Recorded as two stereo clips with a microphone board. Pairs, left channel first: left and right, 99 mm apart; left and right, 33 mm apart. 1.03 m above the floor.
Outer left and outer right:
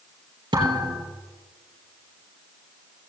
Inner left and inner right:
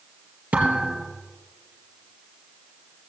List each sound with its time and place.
0.5 s a thud: 55° right (ahead or behind), 3.5 m